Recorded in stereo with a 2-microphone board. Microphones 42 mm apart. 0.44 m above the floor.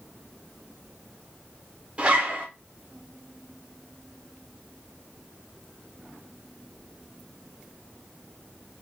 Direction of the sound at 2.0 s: 30° right (ahead or behind).